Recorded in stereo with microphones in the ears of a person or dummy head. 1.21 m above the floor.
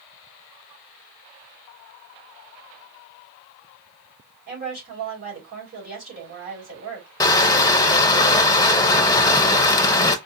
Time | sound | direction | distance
4.5 | a woman speaking | 50° right (ahead or behind) | 3.5 m
7.2 | crushing | 20° left (ahead or behind) | 0.5 m